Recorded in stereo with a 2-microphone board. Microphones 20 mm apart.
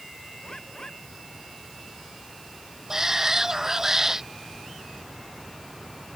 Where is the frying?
No frying in this recording.